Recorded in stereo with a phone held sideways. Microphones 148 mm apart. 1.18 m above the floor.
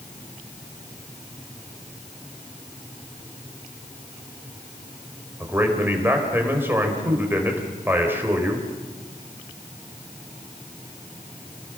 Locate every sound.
5.4 s a man speaking: 15° right (ahead or behind), 4.5 m